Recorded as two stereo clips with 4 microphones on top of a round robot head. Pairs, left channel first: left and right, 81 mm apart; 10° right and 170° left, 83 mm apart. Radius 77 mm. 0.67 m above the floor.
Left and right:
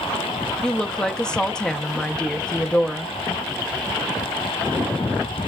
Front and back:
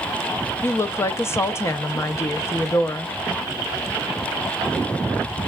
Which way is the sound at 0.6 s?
20° left.